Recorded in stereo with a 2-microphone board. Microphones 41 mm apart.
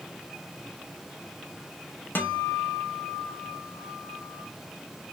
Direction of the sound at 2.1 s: 50° left (ahead or behind).